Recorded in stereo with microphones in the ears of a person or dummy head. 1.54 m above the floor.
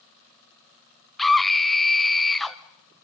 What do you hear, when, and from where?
1.2 s a scream: centre (ahead or behind), 0.9 m